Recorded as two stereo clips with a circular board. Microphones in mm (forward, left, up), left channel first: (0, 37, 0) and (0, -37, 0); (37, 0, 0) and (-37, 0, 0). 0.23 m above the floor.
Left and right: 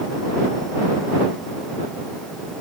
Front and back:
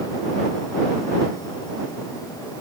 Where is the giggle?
No giggle in this recording.